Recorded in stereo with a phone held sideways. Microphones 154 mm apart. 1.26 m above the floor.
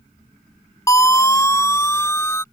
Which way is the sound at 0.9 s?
20° left (ahead or behind).